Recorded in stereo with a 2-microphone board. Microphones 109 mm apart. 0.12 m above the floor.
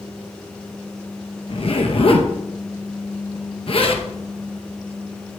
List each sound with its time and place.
1.5 s a zipper: 60° left (ahead or behind), 2.5 m